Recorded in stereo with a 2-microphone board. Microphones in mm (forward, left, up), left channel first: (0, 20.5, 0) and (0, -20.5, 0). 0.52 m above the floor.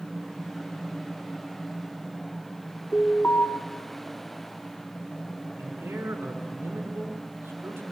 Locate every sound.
2.9 s an alarm: 45° left (ahead or behind), 3.5 m
5.6 s a man speaking: 70° right (ahead or behind), 5.5 m